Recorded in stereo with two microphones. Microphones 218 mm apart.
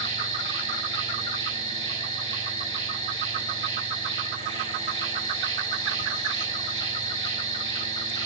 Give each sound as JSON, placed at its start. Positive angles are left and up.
{"t": 0.0, "sound": "an insect", "side_deg": 20, "distance_m": 1.6}